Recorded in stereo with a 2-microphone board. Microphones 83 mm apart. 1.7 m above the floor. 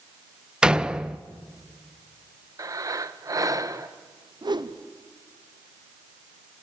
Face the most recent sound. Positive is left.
turn(degrees=-60)  # may be behind; listen again after turning